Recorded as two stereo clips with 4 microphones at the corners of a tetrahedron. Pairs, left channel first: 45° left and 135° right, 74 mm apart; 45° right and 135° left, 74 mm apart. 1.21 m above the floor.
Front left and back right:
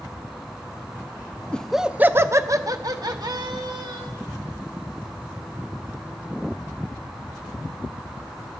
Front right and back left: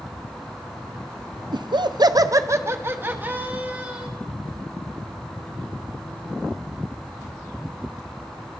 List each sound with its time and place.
1.5 s laughter: 120° left, 0.5 m; by 4.1 s 155° right, 1.8 m